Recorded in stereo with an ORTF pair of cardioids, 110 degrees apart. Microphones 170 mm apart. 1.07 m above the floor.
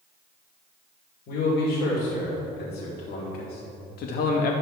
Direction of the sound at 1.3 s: 70° left.